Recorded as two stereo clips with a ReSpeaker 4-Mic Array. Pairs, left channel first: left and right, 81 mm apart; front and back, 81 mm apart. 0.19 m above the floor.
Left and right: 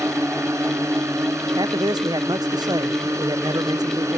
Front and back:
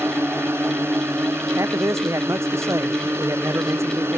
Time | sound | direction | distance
0.0 | a drone | 130° right | ?
1.6 | a man speaking | 125° right | ?